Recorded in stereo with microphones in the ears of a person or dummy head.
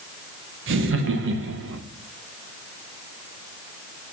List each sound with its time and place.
0.7 s laughter: 75° right (ahead or behind), 1.0 m